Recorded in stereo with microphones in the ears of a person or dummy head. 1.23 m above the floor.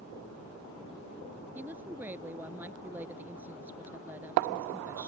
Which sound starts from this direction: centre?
A woman speaking, at 1.6 s.